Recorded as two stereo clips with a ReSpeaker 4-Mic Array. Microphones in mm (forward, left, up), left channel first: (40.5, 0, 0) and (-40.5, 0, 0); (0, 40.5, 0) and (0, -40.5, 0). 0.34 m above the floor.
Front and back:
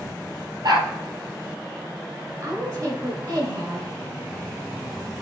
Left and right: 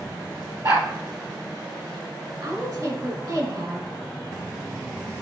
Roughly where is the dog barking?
Behind right.